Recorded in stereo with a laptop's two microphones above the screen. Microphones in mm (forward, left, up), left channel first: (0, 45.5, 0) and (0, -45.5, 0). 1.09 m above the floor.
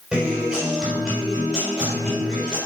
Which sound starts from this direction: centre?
A guitar, at 0.1 s.